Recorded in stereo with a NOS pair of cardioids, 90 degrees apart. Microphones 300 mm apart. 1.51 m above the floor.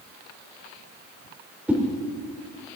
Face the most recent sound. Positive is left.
turn(degrees=-5)